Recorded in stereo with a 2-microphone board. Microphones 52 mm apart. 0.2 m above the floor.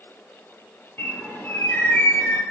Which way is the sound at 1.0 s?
40° left (ahead or behind).